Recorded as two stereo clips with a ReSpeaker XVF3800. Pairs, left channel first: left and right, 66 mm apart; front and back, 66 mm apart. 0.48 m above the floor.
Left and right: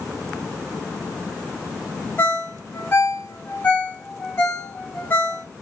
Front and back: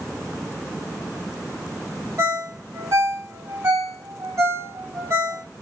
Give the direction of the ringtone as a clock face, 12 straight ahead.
7 o'clock.